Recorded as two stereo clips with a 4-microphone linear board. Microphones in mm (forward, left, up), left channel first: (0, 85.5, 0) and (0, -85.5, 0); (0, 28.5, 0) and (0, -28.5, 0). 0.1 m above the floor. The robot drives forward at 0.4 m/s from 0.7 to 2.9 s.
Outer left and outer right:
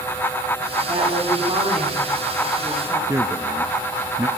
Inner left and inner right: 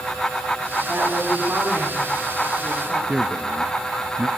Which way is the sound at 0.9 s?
35° right (ahead or behind).